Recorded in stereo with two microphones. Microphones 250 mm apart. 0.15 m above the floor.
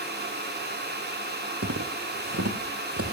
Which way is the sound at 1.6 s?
75° right (ahead or behind).